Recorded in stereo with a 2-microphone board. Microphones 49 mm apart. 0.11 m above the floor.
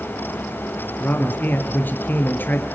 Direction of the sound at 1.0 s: 40° left (ahead or behind).